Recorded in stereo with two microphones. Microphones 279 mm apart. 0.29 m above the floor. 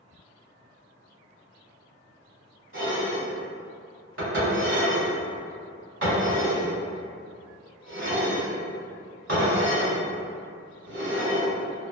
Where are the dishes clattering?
45° right (ahead or behind), 1.5 m.